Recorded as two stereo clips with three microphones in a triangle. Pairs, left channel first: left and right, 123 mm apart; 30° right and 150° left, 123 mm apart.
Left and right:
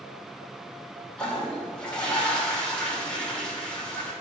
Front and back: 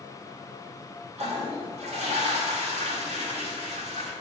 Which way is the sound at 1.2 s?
170° left.